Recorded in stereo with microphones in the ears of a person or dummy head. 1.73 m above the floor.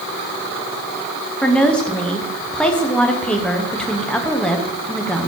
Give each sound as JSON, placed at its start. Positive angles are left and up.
{"t": 1.4, "sound": "a woman speaking", "side_deg": 5, "distance_m": 0.9}